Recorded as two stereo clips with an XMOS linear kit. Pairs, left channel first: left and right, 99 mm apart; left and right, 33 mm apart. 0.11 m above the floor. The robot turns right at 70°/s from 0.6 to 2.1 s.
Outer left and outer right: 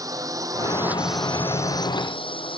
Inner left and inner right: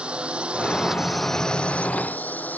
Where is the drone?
35° right (ahead or behind); by 2.6 s 60° left (ahead or behind).